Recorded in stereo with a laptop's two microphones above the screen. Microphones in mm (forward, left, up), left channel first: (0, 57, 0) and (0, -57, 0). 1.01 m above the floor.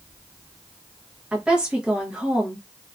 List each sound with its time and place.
1.3 s a woman speaking: 5° right (ahead or behind), 0.8 m